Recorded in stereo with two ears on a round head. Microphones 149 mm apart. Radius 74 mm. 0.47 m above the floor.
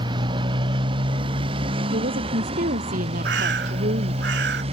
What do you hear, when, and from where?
0.0 s a motorcycle: 30° right (ahead or behind); by 4.7 s 35° right (ahead or behind)
1.9 s a woman speaking: 55° right (ahead or behind)
3.2 s a bird: 75° right (ahead or behind)